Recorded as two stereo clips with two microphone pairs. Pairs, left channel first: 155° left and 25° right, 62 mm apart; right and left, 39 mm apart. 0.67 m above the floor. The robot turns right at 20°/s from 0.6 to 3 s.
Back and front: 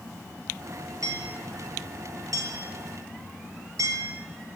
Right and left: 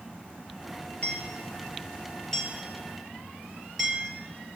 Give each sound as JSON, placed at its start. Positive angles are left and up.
{"t": 1.0, "sound": "hammering", "azimuth_deg": -40, "distance_m": 8.5}